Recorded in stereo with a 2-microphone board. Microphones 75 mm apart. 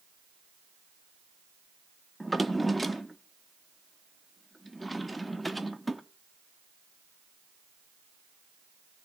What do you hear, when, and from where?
2.2 s a drawer: centre (ahead or behind), 0.6 m